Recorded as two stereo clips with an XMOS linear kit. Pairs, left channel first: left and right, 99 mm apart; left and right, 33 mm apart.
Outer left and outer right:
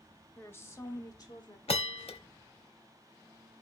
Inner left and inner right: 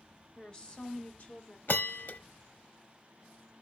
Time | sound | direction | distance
0.4 | a woman speaking | 20° left (ahead or behind) | 1.2 m
1.7 | a bell | 75° left (ahead or behind) | 0.6 m